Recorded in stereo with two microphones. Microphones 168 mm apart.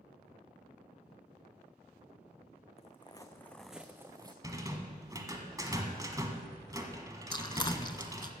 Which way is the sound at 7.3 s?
30° left (ahead or behind).